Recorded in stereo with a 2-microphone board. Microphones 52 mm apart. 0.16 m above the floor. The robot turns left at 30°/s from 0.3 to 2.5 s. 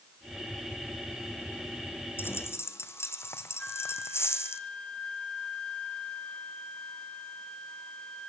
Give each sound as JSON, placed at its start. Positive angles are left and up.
{"t": 2.2, "sound": "a dropped coin", "side_deg": 45, "distance_m": 2.0}
{"t": 3.6, "sound": "a flute", "side_deg": 15, "distance_m": 1.5}